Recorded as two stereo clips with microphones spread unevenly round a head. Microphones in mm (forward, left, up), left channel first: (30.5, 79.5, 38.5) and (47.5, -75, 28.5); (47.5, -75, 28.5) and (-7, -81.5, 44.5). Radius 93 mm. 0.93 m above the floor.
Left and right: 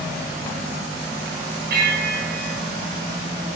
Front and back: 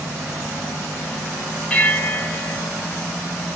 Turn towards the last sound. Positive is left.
turn(degrees=-65)